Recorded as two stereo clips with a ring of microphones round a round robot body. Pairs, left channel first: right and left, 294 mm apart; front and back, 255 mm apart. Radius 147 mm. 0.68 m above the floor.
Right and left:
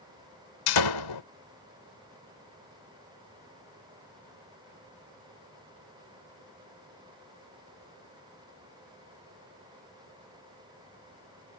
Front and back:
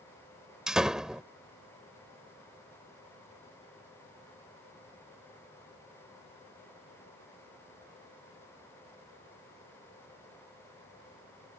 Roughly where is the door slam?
Right.